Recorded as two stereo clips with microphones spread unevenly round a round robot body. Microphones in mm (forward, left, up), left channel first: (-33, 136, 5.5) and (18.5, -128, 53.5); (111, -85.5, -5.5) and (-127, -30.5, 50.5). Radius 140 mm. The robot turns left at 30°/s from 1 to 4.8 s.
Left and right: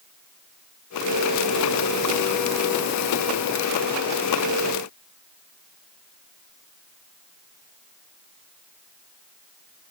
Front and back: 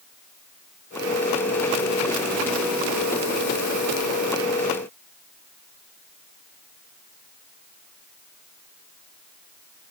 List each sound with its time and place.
Only background noise.